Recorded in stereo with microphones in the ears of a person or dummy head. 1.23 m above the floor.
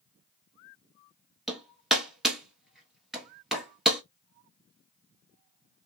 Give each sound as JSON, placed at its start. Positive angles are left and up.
{"t": 1.5, "sound": "hammering", "side_deg": 0, "distance_m": 1.1}